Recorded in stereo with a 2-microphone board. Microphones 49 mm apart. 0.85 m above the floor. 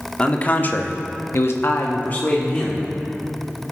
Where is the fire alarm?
No fire alarm in this recording.